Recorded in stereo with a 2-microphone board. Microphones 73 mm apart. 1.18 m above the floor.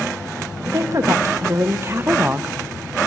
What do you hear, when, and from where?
0.7 s a woman speaking: 45° right (ahead or behind), 1.7 m; by 2.5 s 15° right (ahead or behind), 0.5 m